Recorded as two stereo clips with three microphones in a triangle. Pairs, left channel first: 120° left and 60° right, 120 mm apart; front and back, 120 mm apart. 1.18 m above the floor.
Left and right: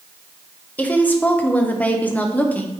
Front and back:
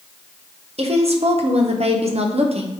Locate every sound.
0.8 s a woman speaking: 165° right, 1.0 m